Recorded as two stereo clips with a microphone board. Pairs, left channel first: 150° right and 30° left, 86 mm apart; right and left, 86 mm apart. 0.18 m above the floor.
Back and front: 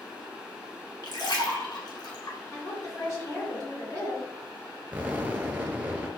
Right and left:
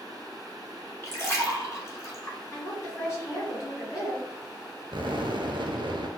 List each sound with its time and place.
1.0 s a splash: 140° right, 1.0 m
2.5 s a woman speaking: 120° right, 1.7 m
4.9 s an explosion: 100° left, 0.6 m